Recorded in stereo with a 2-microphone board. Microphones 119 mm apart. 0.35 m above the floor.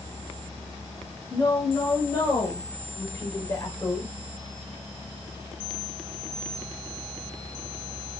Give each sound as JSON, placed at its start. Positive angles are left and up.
{"t": 1.3, "sound": "a woman speaking", "side_deg": 20, "distance_m": 2.0}